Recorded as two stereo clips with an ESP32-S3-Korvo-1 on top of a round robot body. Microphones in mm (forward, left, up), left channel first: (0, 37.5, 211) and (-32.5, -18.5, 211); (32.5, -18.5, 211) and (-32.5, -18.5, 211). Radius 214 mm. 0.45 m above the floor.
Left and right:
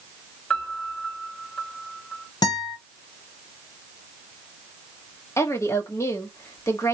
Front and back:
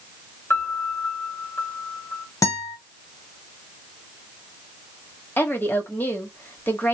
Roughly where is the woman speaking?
Ahead left.